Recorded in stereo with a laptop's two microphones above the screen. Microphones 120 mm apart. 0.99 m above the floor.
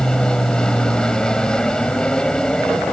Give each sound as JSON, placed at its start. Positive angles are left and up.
{"t": 0.0, "sound": "an aircraft", "side_deg": 5}